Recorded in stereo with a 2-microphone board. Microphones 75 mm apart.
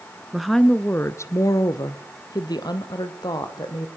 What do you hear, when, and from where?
0.3 s a woman speaking: 5° right (ahead or behind), 1.1 m; by 3.9 s 70° left (ahead or behind), 4 m